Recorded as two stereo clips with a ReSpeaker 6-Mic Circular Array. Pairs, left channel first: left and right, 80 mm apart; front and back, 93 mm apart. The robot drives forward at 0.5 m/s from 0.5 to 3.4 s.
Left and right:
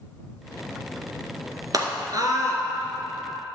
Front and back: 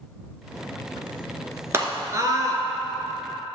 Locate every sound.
1.7 s a scream: 120° right, 2.0 m; by 2.6 s 130° right, 2 m